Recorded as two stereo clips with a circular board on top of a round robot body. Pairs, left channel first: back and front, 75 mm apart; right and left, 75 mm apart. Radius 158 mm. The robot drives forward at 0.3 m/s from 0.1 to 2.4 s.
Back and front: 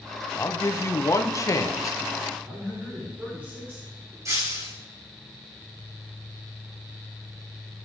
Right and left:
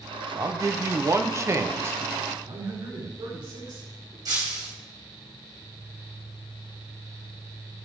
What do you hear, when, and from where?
0.4 s a man speaking: 125° left, 1.3 m; by 2.0 s 145° left, 1.6 m
2.4 s a man speaking: 70° left, 5.5 m
4.2 s breaking glass: 55° left, 3.5 m